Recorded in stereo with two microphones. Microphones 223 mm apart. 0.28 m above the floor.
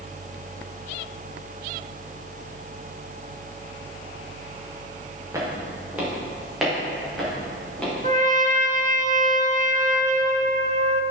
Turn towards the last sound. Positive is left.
turn(degrees=-35)  # may be behind; listen again after turning